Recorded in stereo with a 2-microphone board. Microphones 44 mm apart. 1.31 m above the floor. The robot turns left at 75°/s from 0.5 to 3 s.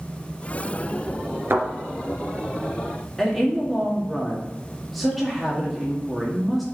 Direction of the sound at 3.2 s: 5° left (ahead or behind).